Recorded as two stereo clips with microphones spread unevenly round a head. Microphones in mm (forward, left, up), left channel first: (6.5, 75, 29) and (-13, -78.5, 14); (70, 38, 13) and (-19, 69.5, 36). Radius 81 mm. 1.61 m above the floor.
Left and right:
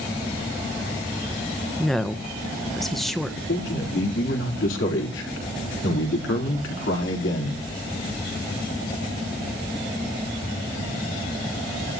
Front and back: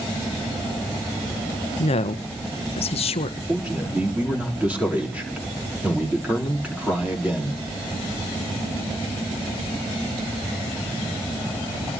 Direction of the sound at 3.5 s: 85° left.